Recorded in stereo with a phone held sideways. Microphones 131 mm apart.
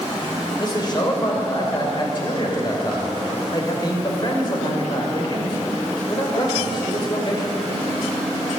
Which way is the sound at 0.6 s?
35° left (ahead or behind).